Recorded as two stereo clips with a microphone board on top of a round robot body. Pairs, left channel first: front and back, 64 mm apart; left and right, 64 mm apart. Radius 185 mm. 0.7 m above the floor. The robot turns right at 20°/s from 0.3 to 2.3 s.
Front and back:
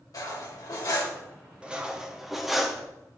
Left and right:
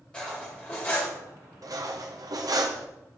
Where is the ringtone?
No ringtone in this recording.